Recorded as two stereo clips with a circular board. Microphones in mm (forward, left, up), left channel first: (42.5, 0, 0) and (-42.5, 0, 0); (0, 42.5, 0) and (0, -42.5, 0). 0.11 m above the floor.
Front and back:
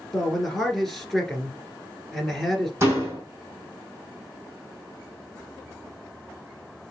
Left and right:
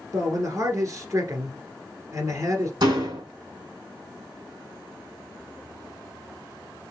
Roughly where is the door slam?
Behind right.